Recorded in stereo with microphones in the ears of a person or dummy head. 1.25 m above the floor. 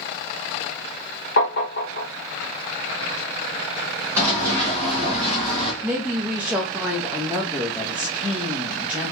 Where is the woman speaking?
5° right (ahead or behind), 0.6 m.